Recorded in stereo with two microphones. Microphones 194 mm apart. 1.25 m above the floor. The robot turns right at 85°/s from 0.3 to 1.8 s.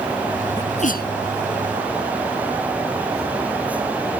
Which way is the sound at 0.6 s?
15° left (ahead or behind).